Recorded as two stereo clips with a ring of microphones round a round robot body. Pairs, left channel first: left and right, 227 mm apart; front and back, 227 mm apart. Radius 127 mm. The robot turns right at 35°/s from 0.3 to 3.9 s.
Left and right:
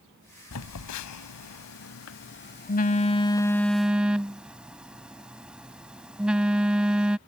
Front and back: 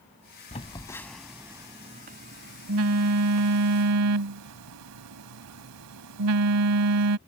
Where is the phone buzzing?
65° left; by 7.2 s 175° right.